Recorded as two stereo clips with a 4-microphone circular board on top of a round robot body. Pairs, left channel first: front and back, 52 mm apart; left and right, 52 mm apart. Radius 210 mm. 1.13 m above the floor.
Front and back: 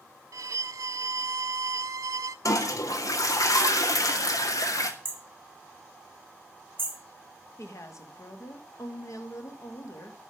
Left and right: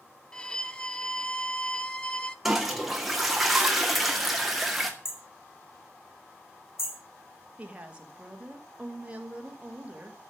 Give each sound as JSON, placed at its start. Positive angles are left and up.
{"t": 0.3, "sound": "a violin", "azimuth_deg": 160, "distance_m": 0.5}
{"t": 2.5, "sound": "a toilet flushing", "azimuth_deg": -5, "distance_m": 2.0}
{"t": 5.0, "sound": "hammering", "azimuth_deg": 130, "distance_m": 4.5}
{"t": 7.6, "sound": "a woman speaking", "azimuth_deg": -25, "distance_m": 2.5}